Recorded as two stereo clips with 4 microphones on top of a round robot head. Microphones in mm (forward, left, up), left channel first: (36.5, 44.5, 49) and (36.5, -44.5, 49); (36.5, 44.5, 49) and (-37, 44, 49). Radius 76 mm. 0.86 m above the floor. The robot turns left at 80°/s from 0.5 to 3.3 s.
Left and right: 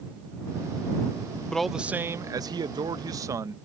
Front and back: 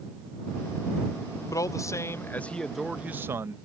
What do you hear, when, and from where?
1.5 s a man speaking: 10° left; by 3.6 s 135° right